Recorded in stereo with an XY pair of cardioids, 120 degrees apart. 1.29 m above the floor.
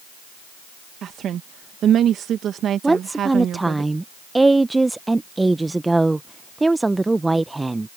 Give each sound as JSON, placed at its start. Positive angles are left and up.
{"t": 1.0, "sound": "a woman speaking", "azimuth_deg": -55}
{"t": 2.8, "sound": "a woman speaking", "azimuth_deg": -10}